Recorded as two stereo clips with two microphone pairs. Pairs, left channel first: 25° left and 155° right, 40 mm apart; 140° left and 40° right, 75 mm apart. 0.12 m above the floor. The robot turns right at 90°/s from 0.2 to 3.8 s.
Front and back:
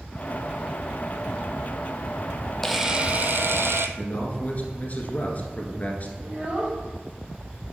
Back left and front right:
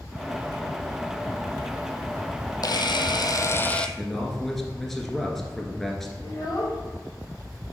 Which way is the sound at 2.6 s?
110° left.